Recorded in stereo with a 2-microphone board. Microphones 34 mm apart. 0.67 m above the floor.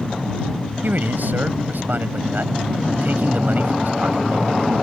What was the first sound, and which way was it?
A man speaking, 65° right (ahead or behind).